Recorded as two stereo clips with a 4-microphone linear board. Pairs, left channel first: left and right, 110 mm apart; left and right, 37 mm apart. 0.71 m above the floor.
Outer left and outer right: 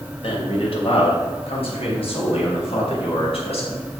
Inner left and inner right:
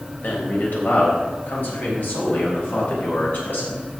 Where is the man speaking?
60° left (ahead or behind), 3.5 m.